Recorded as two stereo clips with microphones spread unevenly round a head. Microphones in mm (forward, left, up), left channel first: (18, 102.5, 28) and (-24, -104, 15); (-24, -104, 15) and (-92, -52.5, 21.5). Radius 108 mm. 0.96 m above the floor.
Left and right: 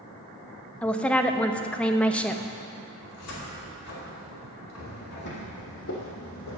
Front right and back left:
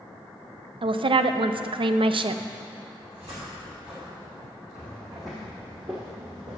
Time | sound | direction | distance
0.8 | a woman speaking | 165° left | 0.6 m
3.0 | a cupboard door | 70° left | 2.5 m
4.8 | footsteps | 45° left | 1.6 m